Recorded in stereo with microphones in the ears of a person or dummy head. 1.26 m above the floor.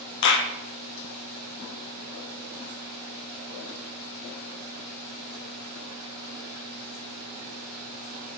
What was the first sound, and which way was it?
A clap, 65° left (ahead or behind).